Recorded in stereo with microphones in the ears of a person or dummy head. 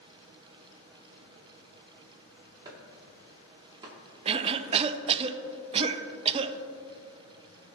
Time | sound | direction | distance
2.6 | chopping | 25° right (ahead or behind) | 2 m
4.2 | a cough | 35° right (ahead or behind) | 0.5 m